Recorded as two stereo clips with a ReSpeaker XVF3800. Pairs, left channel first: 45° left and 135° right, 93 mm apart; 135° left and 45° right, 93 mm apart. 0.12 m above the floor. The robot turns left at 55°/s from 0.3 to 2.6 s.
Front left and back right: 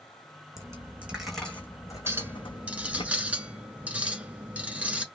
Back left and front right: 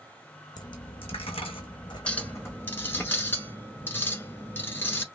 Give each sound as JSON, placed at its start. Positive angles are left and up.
{"t": 0.6, "sound": "a dropped coin", "azimuth_deg": 175, "distance_m": 1.1}
{"t": 2.1, "sound": "a clink", "azimuth_deg": -165, "distance_m": 0.9}